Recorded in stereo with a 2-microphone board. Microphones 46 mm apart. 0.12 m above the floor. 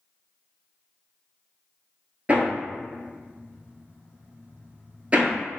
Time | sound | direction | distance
2.3 | hammering | 25° right (ahead or behind) | 1.0 m